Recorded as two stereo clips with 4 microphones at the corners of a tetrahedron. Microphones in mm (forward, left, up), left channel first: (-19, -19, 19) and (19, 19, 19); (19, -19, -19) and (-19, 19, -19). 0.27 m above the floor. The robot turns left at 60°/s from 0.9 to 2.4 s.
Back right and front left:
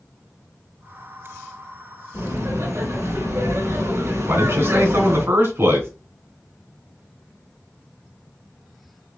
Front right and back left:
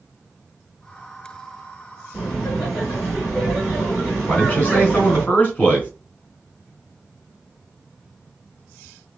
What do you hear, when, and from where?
2.1 s laughter: 45° left, 3.5 m; by 5.2 s 30° left, 3.5 m
4.2 s a man speaking: 15° left, 3 m